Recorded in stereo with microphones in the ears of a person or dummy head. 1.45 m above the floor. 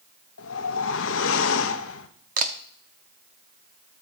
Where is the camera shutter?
45° right (ahead or behind), 0.7 m.